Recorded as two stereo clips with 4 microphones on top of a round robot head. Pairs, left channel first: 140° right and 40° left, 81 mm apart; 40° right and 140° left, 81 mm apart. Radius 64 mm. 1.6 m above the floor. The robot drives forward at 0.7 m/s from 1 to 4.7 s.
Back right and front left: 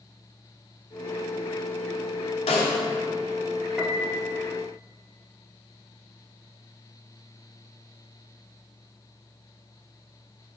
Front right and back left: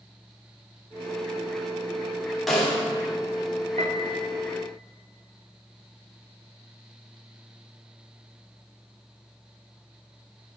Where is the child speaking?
No child speaking in this recording.